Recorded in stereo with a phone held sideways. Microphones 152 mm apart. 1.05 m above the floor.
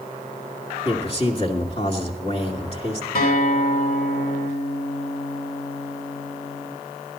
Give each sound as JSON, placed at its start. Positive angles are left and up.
{"t": 0.8, "sound": "a man speaking", "side_deg": 40, "distance_m": 2.5}
{"t": 3.1, "sound": "a guitar", "side_deg": 90, "distance_m": 2.5}